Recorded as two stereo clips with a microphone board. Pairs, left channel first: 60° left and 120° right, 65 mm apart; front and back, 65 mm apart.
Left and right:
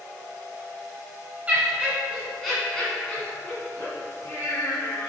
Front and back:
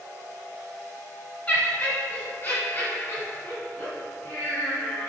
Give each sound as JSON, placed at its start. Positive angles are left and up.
{"t": 1.5, "sound": "laughter", "azimuth_deg": -55, "distance_m": 1.4}